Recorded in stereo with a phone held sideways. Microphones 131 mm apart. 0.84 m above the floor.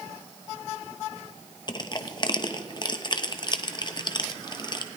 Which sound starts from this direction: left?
Crushing, at 1.7 s.